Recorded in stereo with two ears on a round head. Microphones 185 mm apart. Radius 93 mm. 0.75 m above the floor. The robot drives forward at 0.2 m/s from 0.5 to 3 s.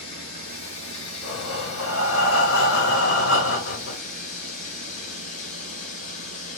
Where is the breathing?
70° left (ahead or behind), 1.0 m.